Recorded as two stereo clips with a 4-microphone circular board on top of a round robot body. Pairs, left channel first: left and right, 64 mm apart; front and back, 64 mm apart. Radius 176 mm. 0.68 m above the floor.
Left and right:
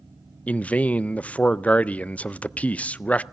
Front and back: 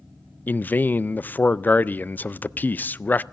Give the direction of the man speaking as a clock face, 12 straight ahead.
11 o'clock.